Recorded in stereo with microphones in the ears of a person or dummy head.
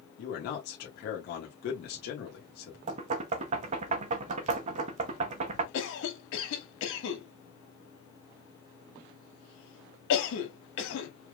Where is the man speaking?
50° left (ahead or behind), 1.3 m.